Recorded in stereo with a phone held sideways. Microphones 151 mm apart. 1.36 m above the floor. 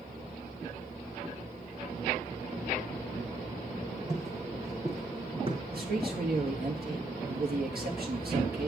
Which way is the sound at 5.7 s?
75° right (ahead or behind).